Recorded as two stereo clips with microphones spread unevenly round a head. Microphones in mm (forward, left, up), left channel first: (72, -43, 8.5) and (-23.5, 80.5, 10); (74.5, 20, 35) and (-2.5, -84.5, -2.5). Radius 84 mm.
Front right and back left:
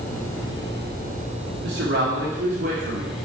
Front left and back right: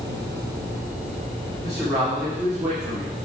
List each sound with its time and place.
1.6 s a man speaking: 150° left, 1.7 m